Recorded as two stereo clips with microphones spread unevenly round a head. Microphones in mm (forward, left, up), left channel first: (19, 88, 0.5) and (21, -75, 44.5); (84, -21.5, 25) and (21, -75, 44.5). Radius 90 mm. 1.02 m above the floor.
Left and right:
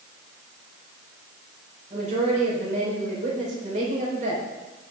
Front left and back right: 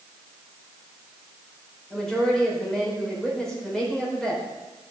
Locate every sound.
1.9 s a woman speaking: 40° right, 5 m